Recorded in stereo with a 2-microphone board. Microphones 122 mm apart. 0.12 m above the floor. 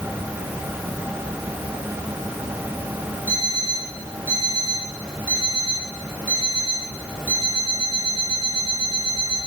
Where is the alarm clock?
15° right (ahead or behind), 5.5 m.